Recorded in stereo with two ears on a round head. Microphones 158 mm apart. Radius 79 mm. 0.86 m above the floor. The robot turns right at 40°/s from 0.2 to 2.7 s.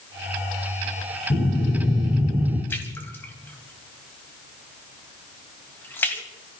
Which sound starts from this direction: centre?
A splash, at 2.7 s.